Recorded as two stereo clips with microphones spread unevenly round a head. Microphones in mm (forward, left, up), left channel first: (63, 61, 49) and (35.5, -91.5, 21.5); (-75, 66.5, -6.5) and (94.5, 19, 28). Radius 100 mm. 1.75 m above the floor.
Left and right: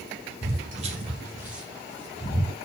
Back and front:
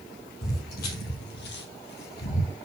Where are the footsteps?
145° right, 3 m; by 2.6 s 130° left, 3 m.